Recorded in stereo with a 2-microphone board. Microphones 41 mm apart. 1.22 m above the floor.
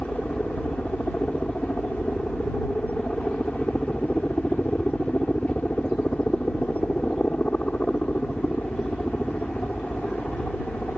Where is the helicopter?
35° left (ahead or behind).